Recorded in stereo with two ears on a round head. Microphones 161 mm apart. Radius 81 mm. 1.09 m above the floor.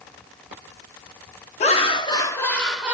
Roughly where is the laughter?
Left.